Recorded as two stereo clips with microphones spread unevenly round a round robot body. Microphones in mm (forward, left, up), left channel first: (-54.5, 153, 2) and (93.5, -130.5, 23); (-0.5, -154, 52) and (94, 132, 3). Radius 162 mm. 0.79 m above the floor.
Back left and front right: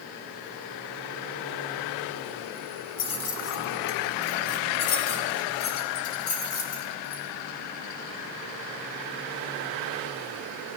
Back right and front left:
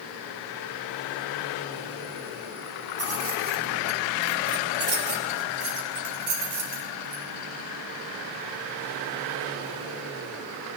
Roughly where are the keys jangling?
Behind left.